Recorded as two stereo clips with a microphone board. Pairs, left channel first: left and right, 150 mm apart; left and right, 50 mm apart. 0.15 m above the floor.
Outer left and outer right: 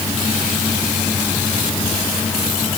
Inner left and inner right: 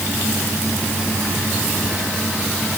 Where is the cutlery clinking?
I don't hear cutlery clinking.